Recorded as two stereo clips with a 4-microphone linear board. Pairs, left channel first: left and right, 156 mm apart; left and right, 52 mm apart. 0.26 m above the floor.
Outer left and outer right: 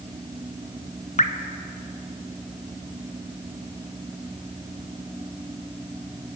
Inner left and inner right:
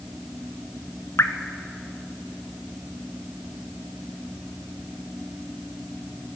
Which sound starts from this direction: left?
Dripping, at 1.2 s.